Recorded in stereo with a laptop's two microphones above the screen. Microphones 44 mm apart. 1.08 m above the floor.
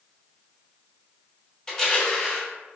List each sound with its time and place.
1.7 s crushing: 15° left (ahead or behind), 0.9 m